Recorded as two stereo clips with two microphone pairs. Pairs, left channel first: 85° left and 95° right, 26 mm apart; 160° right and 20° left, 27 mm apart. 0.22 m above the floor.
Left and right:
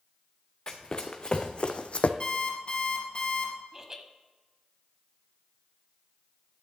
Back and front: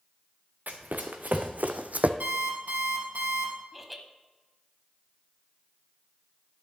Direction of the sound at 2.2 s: 30° left.